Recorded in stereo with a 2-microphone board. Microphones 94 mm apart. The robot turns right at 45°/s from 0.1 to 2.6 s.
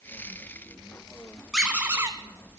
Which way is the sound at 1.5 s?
5° right (ahead or behind).